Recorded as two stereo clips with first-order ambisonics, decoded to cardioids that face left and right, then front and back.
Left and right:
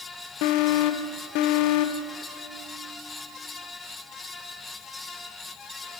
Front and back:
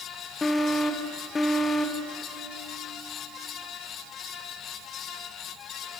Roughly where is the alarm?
Left.